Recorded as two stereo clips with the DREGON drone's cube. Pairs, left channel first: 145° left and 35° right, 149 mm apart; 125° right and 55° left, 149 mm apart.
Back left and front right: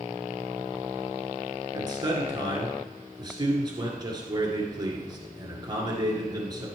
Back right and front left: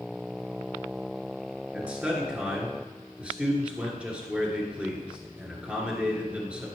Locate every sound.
1.7 s a man speaking: 20° right, 1.9 m